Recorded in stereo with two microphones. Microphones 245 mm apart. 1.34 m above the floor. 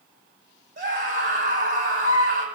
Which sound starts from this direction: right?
A scream, at 0.8 s.